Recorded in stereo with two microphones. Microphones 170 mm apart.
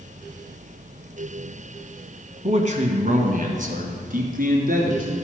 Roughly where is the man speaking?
Right.